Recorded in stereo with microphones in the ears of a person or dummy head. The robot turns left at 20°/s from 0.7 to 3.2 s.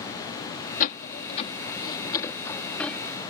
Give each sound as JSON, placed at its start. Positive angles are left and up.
{"t": 0.8, "sound": "a door slam", "side_deg": 50}